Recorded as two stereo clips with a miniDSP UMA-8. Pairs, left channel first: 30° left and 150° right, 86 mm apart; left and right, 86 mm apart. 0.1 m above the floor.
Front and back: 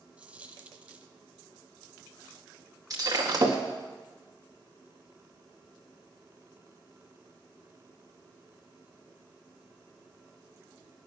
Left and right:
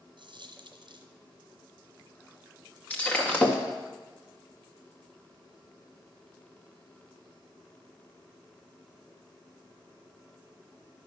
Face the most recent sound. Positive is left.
turn(degrees=165)